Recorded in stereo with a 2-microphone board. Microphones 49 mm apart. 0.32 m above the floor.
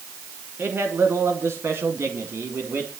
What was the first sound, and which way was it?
A man speaking, 55° right (ahead or behind).